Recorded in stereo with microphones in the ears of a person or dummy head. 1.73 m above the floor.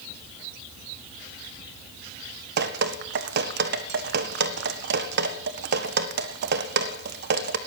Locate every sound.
2.6 s dripping: 60° right (ahead or behind), 1.5 m